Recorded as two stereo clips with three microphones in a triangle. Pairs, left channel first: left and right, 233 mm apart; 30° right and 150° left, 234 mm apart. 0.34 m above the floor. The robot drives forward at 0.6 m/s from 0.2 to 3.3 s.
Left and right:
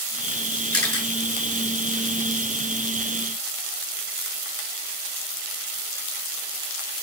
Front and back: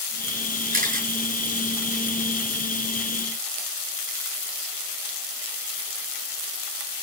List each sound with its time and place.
0.7 s a camera shutter: 95° left, 6 m; by 1.1 s 100° left, 6 m